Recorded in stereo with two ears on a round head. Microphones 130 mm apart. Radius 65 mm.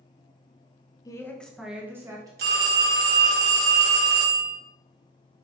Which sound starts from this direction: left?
A woman speaking, at 1.1 s.